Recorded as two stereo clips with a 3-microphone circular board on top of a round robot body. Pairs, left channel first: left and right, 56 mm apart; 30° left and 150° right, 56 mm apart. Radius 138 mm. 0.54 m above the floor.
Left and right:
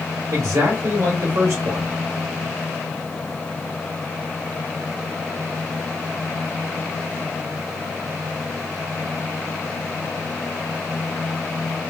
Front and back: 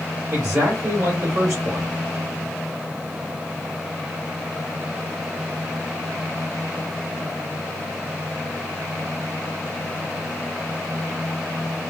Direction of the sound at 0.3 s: 120° right.